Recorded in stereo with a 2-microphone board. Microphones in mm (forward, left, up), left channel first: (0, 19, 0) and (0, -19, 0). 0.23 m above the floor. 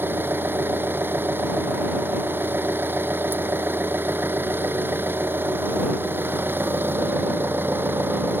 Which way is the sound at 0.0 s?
70° right (ahead or behind).